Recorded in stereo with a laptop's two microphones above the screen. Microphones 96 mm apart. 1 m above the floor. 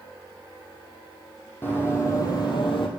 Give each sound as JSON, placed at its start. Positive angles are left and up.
{"t": 1.6, "sound": "running footsteps", "side_deg": 20, "distance_m": 2.5}